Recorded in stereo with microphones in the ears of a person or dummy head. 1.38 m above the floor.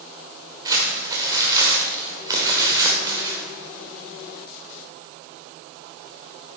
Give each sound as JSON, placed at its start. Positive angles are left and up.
{"t": 0.7, "sound": "crumpling", "side_deg": -25, "distance_m": 2.0}